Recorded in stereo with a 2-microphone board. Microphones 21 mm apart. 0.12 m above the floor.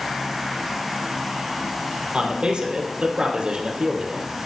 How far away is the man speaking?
About 3.5 m.